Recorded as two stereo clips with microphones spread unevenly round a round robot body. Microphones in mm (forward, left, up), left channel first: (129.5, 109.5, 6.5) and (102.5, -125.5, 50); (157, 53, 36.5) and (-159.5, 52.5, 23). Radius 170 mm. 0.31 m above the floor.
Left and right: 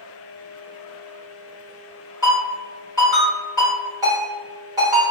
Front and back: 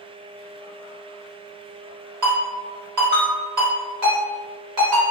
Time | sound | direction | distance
2.2 | a ringtone | straight behind | 1.4 m